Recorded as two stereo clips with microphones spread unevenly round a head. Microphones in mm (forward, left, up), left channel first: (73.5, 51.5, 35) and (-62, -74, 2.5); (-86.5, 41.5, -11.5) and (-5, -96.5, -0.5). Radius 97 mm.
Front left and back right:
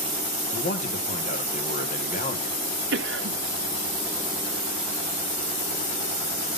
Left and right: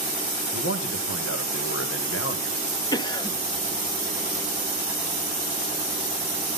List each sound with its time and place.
0.5 s a man speaking: 95° left, 1.9 m
2.9 s a cough: 175° right, 1.3 m